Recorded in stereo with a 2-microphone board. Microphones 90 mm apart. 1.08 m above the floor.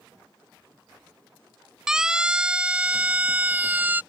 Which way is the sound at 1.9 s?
5° right (ahead or behind).